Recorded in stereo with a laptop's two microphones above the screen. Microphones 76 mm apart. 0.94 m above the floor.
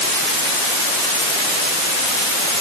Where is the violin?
I don't hear a violin.